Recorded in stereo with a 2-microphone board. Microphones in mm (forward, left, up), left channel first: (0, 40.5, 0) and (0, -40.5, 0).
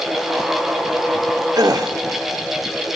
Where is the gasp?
50° right (ahead or behind), 1.5 m.